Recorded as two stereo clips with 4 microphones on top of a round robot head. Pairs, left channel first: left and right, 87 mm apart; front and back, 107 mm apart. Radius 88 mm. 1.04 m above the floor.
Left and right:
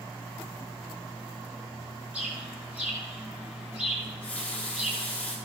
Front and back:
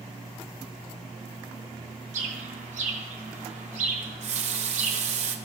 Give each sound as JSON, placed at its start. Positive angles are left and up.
{"t": 2.1, "sound": "a bird", "azimuth_deg": -170, "distance_m": 1.7}
{"t": 4.0, "sound": "a running tap", "azimuth_deg": 170, "distance_m": 1.3}